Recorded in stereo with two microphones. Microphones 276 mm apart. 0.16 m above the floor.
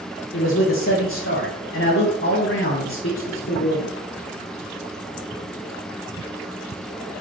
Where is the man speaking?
50° left (ahead or behind), 3 m.